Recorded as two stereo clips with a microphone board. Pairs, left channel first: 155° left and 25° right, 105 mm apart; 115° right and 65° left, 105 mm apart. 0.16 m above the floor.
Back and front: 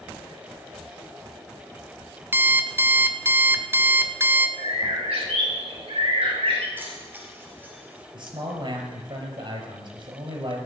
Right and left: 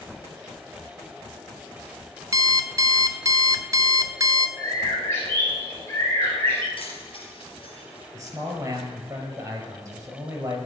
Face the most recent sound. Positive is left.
turn(degrees=10)